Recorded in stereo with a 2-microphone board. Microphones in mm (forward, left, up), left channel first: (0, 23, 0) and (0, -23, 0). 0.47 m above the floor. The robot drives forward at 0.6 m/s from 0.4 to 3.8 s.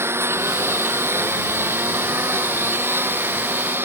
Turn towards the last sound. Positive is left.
turn(degrees=-50)  # may be behind; listen again after turning